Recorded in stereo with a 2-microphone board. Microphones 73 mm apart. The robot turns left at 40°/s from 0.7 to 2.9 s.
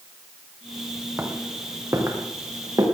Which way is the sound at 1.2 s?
30° right (ahead or behind).